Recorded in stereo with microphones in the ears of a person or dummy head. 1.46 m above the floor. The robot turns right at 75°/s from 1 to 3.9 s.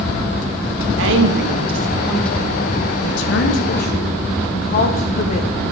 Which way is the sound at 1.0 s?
85° right.